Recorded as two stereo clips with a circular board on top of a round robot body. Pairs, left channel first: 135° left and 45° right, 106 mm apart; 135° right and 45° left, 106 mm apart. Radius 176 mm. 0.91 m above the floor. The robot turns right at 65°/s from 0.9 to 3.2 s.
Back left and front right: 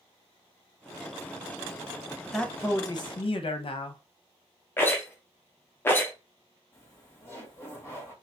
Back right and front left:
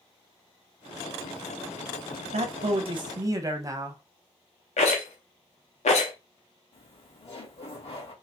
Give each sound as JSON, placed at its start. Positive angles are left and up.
{"t": 2.3, "sound": "a man speaking", "azimuth_deg": 45, "distance_m": 0.7}
{"t": 4.8, "sound": "a rattle", "azimuth_deg": -155, "distance_m": 0.8}
{"t": 6.7, "sound": "laughter", "azimuth_deg": -160, "distance_m": 2.0}